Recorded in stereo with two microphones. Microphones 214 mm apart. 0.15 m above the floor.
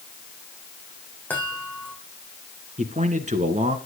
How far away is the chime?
About 4.5 m.